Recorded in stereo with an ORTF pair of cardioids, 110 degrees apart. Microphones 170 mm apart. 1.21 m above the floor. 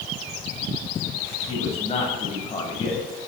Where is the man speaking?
35° left, 7.5 m.